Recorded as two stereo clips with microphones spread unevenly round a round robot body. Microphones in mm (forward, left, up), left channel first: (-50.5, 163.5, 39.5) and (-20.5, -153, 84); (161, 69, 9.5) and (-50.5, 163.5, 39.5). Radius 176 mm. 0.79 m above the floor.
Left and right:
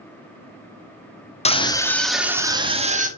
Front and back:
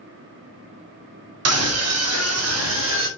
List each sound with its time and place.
1.4 s a scream: 160° left, 1.8 m; by 3.1 s 155° right, 2 m